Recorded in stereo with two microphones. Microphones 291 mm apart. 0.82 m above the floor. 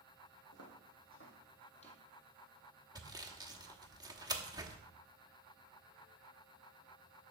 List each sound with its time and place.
0.5 s footsteps: 60° left (ahead or behind), 2.5 m; by 2.0 s 15° left (ahead or behind), 2 m
3.0 s sawing: 15° right (ahead or behind), 1.0 m